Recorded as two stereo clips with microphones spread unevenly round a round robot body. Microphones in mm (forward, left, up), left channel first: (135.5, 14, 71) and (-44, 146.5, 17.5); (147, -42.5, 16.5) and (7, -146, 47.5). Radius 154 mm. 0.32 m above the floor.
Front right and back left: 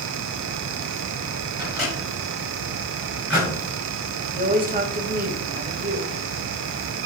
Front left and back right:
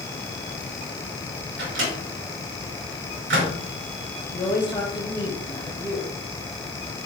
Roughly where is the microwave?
Behind right.